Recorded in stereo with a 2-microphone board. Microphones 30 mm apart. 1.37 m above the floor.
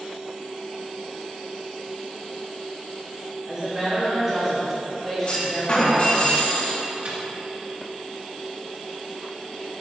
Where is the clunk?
45° left (ahead or behind), 2 m.